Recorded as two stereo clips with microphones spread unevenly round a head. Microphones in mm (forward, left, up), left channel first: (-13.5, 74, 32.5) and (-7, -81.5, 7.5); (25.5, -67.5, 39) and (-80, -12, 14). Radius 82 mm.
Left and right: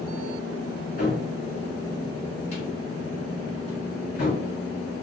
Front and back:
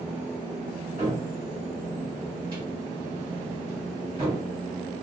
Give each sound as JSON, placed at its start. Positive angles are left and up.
{"t": 1.0, "sound": "a cupboard door", "azimuth_deg": 85, "distance_m": 1.8}